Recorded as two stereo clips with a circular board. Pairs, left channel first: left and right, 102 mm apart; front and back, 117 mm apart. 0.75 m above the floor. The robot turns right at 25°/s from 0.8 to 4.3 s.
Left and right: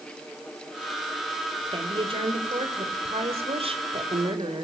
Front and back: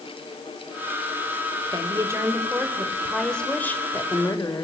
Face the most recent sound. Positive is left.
turn(degrees=-60)